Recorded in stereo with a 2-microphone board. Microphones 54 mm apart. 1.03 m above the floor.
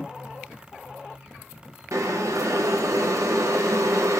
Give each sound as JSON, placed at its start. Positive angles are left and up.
{"t": 1.9, "sound": "boiling", "side_deg": -70, "distance_m": 0.6}